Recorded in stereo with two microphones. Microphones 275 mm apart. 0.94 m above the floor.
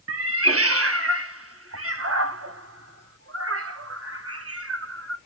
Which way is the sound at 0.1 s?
55° right (ahead or behind).